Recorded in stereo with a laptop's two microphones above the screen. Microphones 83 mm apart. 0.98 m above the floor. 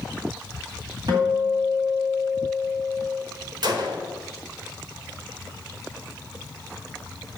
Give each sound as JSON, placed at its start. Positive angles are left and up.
{"t": 1.1, "sound": "a guitar", "side_deg": -60, "distance_m": 1.9}
{"t": 3.6, "sound": "a gunshot", "side_deg": -60, "distance_m": 1.0}